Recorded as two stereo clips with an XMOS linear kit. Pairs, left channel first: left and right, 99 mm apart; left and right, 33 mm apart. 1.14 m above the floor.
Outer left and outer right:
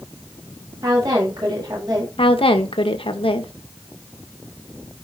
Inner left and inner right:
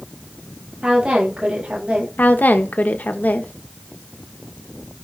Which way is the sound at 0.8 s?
40° right (ahead or behind).